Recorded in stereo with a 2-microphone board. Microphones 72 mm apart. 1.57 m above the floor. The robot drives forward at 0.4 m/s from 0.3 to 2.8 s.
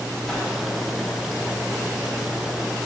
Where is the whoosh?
5° left (ahead or behind), 2 m.